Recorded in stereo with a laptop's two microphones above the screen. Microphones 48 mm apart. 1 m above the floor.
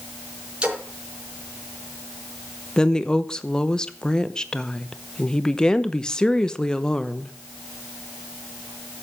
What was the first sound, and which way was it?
A splash, 15° right (ahead or behind).